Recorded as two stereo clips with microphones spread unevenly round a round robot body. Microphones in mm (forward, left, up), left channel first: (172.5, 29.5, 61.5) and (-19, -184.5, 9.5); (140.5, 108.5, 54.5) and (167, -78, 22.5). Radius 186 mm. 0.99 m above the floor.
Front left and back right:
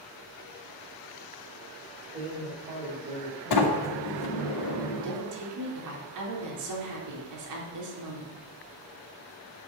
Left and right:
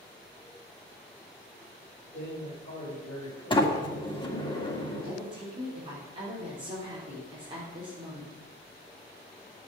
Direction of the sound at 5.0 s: 155° right.